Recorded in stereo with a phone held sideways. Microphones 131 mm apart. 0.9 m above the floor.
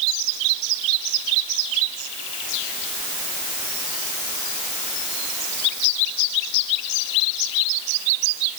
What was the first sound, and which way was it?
Only background noise.